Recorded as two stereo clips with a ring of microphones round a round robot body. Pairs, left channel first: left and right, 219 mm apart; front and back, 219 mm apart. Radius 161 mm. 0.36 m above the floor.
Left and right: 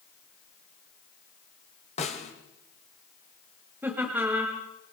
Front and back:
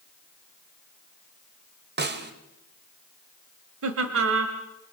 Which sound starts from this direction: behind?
Laughter, at 3.8 s.